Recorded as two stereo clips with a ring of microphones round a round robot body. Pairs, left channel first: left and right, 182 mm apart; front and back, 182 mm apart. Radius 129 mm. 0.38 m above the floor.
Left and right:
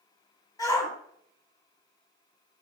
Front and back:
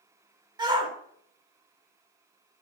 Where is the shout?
145° left, 0.9 m.